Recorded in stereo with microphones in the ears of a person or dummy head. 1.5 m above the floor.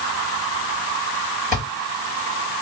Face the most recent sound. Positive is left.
turn(degrees=-50)  # may be behind; listen again after turning